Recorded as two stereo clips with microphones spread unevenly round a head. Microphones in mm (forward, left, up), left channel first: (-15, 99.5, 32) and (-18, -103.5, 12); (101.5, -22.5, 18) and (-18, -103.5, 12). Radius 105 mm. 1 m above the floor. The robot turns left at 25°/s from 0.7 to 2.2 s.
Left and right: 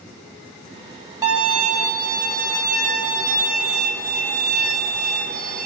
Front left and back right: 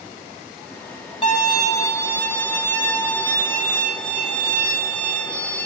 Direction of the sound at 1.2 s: 15° right.